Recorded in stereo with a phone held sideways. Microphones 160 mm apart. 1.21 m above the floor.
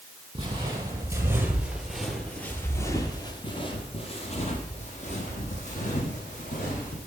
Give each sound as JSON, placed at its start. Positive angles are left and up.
{"t": 0.3, "sound": "footsteps", "side_deg": -30, "distance_m": 1.5}